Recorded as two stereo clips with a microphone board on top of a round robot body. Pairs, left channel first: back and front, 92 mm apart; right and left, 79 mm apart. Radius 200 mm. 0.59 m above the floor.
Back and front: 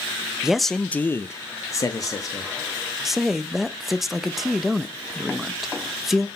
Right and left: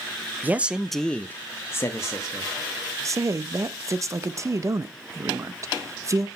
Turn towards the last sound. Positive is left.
turn(degrees=85)